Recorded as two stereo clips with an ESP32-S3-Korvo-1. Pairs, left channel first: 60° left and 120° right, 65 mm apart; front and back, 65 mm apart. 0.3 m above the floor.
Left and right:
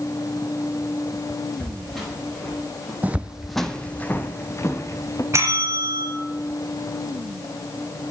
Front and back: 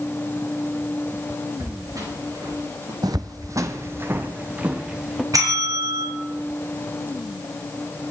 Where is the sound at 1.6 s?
150° left, 7.5 m; by 2.9 s 145° left, 8 m.